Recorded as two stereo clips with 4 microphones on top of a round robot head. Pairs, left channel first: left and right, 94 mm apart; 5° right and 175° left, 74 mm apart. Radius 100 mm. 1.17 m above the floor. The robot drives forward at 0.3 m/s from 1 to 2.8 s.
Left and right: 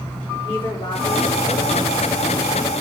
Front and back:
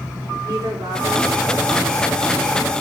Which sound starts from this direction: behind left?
A woman speaking, at 0.4 s.